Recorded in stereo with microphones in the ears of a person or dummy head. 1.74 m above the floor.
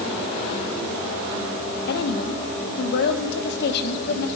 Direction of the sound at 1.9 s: 65° left (ahead or behind).